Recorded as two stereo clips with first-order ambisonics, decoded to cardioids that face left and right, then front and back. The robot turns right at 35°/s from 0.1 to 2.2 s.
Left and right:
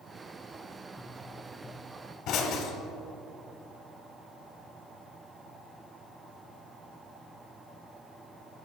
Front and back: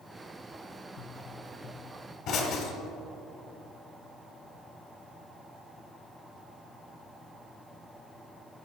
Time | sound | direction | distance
1.0 | a pop | straight ahead | 1.4 m